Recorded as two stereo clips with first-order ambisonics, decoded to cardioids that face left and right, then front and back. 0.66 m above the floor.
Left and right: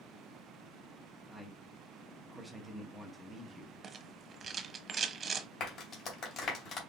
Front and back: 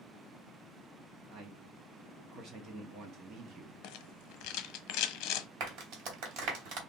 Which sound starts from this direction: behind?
A man speaking, at 1.3 s.